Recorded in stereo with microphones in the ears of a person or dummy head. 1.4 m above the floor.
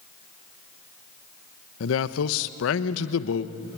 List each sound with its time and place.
1.8 s a man speaking: 75° left (ahead or behind), 1.0 m